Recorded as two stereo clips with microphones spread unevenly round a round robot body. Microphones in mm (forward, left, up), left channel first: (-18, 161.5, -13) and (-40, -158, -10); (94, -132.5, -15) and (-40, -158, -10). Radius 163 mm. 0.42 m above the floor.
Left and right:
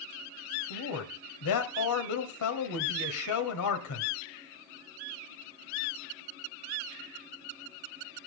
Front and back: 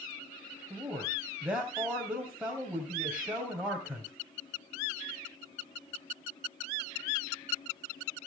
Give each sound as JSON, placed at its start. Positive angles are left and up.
{"t": 0.7, "sound": "a man speaking", "azimuth_deg": 105, "distance_m": 2.5}